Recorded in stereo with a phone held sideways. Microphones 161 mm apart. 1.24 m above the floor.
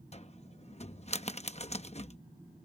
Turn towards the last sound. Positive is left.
turn(degrees=45)  # may be behind; listen again after turning